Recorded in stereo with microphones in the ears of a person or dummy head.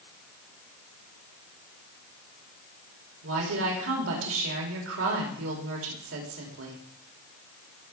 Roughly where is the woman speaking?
Right.